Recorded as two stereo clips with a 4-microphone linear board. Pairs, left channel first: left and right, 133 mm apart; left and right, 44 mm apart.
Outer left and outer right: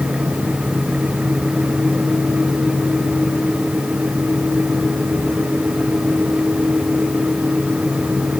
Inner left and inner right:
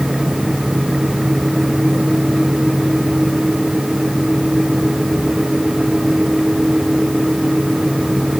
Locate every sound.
Only background noise.